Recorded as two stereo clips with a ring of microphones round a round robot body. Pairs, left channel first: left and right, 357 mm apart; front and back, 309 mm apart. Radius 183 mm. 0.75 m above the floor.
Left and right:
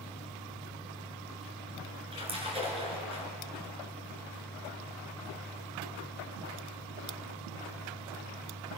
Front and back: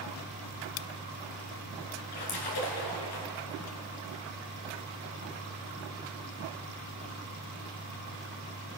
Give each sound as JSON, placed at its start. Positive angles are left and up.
{"t": 2.1, "sound": "a splash", "azimuth_deg": -15, "distance_m": 3.5}